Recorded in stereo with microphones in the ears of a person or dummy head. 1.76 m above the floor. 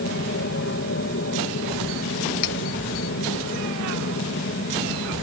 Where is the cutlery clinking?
65° left (ahead or behind).